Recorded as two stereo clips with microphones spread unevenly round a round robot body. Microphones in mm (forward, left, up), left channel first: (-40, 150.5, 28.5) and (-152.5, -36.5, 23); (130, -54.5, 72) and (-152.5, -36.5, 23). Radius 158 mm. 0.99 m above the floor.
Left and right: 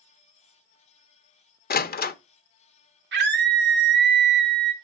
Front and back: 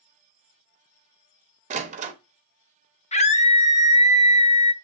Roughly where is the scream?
Right.